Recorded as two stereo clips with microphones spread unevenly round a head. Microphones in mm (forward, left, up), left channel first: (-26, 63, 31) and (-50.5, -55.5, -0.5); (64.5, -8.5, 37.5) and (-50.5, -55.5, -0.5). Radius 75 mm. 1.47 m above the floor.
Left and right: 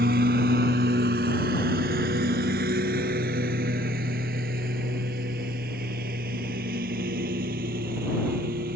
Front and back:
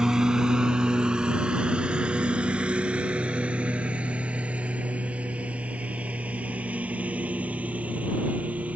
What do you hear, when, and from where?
0.0 s a lawn mower: 65° right; by 8.8 s 75° right